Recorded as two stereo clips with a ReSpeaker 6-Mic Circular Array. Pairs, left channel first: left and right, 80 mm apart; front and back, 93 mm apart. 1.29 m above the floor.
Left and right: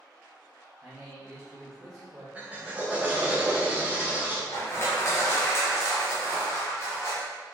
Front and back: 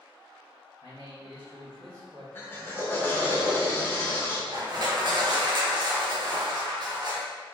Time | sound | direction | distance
0.8 | a man speaking | 170° right | 1.1 m
2.4 | a drill | 40° right | 0.6 m
4.5 | crushing | 140° left | 0.7 m